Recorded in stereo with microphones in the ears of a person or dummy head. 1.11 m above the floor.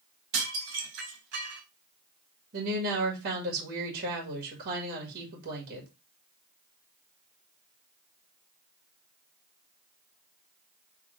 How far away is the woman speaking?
About 1.9 m.